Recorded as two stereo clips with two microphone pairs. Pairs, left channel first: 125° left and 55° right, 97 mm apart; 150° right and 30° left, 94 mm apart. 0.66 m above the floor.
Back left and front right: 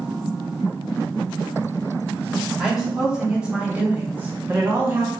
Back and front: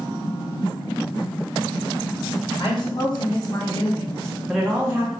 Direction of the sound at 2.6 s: 140° right.